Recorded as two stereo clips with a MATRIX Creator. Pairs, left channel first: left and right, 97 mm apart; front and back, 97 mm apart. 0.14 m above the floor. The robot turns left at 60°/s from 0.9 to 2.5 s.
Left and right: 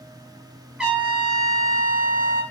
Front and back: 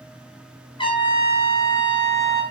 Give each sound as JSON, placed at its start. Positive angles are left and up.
{"t": 0.8, "sound": "a trumpet", "azimuth_deg": -10, "distance_m": 2.5}